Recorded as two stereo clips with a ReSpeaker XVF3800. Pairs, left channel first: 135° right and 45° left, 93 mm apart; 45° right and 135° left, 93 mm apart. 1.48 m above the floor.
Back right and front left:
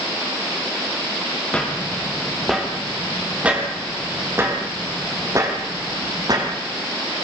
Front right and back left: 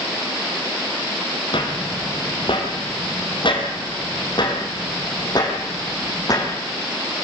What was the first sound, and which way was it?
Footsteps, 55° right.